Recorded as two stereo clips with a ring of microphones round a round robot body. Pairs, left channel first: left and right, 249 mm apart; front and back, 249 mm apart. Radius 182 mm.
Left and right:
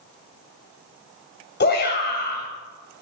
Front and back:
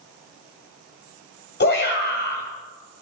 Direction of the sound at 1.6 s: 45° left.